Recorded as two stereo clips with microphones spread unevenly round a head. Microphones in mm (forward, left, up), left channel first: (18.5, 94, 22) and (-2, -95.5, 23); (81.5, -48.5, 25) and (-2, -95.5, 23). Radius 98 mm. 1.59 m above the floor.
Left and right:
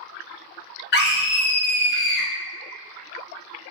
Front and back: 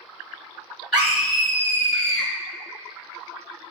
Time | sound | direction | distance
0.9 | a scream | 120° left | 0.9 m